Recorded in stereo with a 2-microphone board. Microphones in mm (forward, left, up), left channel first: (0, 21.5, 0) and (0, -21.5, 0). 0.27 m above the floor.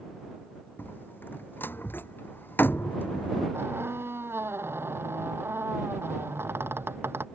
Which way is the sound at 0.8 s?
55° left (ahead or behind).